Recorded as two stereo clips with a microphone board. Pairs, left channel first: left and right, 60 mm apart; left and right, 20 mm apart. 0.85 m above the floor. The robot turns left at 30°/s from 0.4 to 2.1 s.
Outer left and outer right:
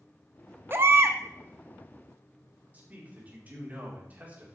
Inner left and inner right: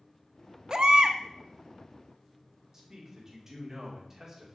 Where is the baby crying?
40° right (ahead or behind), 0.6 m; by 1.2 s 50° right (ahead or behind), 0.6 m.